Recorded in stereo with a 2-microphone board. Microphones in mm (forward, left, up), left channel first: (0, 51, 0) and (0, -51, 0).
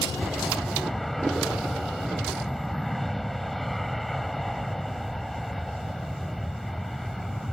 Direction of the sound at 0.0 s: Centre (ahead or behind).